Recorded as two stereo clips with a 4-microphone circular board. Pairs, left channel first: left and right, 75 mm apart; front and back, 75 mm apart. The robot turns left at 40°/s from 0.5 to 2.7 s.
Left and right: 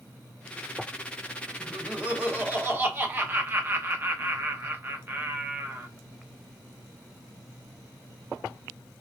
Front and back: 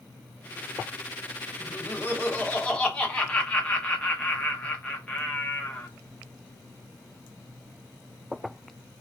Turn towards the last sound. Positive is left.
turn(degrees=-60)